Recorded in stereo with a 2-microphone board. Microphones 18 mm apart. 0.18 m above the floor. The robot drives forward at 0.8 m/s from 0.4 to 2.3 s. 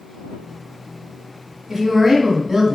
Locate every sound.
1.7 s a woman speaking: 15° right (ahead or behind), 1.4 m